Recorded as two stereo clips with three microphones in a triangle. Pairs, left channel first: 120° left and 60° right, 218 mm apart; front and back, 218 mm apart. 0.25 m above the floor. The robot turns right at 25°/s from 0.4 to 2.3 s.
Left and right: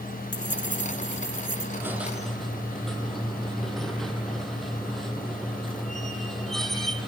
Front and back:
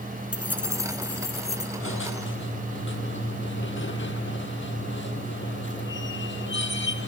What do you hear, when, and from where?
0.3 s keys jangling: 95° left, 2 m; by 1.7 s 125° left, 2 m
1.8 s a squeak: 20° left, 1.5 m; by 7.1 s 30° left, 1.5 m